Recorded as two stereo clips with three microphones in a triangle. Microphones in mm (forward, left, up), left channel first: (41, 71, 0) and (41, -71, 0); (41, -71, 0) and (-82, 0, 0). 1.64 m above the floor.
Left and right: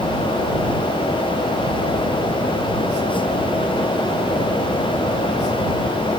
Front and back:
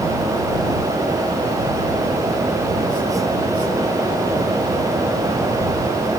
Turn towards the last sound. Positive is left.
No sound to turn to.